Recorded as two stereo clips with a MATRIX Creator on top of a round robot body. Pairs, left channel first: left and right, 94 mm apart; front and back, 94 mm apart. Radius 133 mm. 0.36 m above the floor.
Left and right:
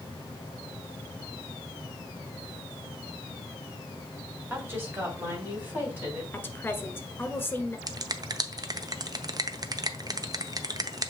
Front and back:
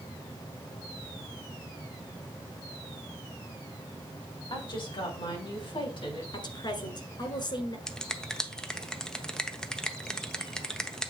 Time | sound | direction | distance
4.5 | a woman speaking | 30° right | 2.5 m
6.3 | a woman speaking | 25° left | 1.7 m
7.9 | a finger snap | 80° right | 0.9 m